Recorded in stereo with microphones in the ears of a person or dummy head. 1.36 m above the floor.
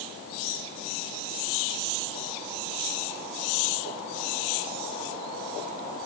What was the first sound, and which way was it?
Only background noise.